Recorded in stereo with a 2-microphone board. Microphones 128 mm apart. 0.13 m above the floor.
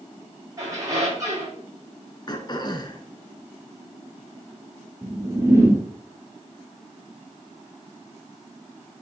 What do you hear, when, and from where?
0.6 s a squeak: 25° right (ahead or behind), 5 m
2.3 s throat clearing: 35° left (ahead or behind), 1.0 m
5.0 s a whoosh: 20° right (ahead or behind), 2.5 m